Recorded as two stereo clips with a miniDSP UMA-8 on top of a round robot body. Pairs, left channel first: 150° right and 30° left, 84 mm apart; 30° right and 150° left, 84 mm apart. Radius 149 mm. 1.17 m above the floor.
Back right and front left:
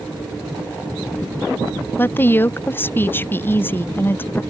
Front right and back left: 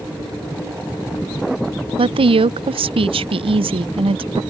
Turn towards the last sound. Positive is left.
turn(degrees=145)